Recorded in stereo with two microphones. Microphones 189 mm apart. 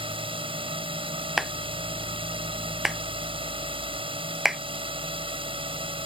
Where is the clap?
Centre (ahead or behind).